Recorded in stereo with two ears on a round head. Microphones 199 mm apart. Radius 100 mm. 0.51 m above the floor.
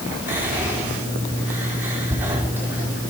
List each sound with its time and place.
0.3 s whispering: 10° right (ahead or behind), 1.2 m